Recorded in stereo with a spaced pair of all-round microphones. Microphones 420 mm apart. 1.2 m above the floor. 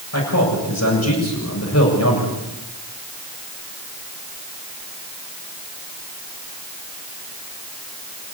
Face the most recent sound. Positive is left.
turn(degrees=40)  # may be behind; listen again after turning